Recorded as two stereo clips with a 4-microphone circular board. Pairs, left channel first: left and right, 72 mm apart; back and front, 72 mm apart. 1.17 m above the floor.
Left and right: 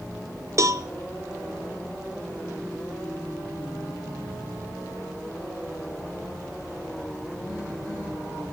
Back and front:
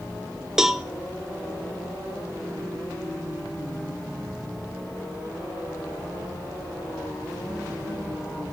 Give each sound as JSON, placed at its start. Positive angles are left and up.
{"t": 0.6, "sound": "a cowbell", "azimuth_deg": -80, "distance_m": 0.6}